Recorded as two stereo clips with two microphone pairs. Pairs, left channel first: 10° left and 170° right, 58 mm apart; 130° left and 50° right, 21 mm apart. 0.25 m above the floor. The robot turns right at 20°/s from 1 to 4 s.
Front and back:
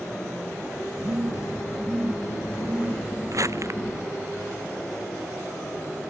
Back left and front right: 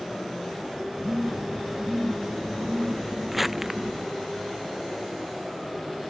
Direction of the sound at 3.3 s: 140° right.